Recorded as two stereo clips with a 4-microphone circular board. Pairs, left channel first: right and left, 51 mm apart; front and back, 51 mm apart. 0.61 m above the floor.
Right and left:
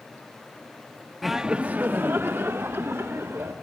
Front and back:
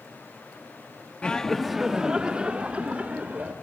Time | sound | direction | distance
1.2 | laughter | straight ahead | 0.6 m